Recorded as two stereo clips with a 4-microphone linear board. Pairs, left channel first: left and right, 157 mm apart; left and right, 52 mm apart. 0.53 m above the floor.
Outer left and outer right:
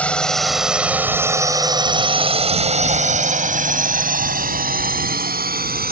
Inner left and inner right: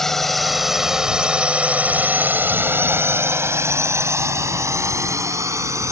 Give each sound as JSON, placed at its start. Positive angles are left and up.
{"t": 0.0, "sound": "a drone", "side_deg": 10}